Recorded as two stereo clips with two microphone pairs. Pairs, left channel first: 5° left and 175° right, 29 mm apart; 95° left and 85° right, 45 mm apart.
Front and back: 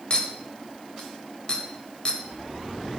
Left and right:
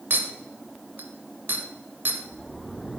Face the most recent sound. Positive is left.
turn(degrees=-50)